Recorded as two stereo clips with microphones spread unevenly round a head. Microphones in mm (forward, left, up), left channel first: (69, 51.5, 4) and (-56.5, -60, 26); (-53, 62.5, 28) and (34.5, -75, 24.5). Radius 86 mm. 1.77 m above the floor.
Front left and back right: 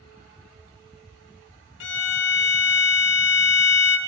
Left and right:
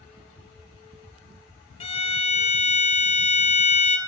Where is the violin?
65° left, 0.7 m.